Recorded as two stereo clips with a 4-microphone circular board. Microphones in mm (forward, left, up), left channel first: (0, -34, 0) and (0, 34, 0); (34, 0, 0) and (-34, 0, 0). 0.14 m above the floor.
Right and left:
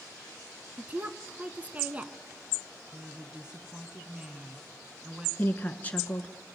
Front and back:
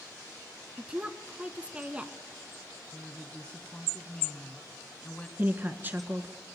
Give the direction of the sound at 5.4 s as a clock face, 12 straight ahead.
5 o'clock.